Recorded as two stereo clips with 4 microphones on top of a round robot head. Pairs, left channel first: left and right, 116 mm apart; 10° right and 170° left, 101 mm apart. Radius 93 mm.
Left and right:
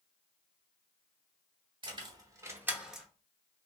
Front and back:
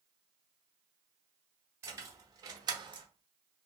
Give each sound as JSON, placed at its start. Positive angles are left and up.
{"t": 1.8, "sound": "keys jangling", "azimuth_deg": -130, "distance_m": 1.1}